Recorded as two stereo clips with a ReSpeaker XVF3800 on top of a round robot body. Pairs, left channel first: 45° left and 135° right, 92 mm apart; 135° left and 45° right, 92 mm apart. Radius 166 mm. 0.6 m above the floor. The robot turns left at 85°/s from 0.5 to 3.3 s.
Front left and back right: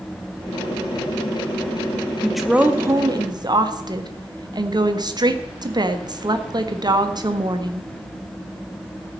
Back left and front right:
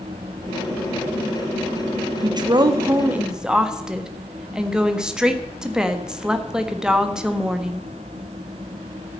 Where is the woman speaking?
35° right, 1.6 m; by 7.9 s 125° right, 1.6 m.